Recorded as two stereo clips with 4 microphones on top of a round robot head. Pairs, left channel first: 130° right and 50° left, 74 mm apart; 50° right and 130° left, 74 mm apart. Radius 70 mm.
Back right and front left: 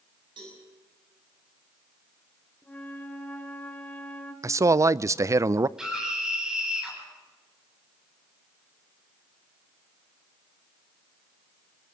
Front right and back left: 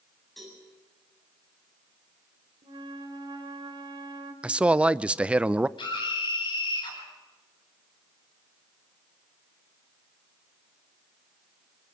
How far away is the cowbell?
About 7.5 m.